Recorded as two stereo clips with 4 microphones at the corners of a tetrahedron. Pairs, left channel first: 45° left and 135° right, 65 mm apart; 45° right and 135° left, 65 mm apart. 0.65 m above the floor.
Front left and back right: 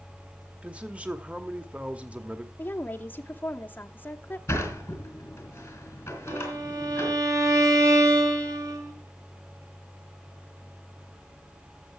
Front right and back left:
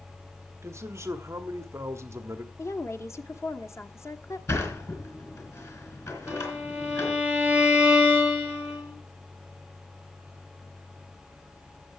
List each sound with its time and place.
0.6 s a man speaking: 160° left, 1.0 m
2.6 s a woman speaking: 10° right, 1.0 m
4.5 s a sliding door: 5° right, 3.5 m
6.3 s a violin: 155° right, 2.5 m